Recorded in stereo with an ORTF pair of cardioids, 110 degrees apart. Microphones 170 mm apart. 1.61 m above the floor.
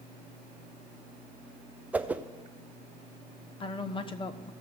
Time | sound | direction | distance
1.9 | a whoosh | 10° right | 0.5 m
3.6 | a woman speaking | 30° left | 0.9 m